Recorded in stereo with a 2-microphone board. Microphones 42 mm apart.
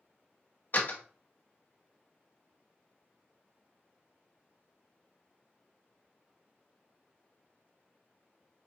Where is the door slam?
45° left (ahead or behind), 0.8 m.